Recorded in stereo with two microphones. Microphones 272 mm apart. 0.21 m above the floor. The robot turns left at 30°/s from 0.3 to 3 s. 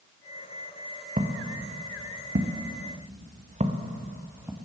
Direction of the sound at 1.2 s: 30° right (ahead or behind).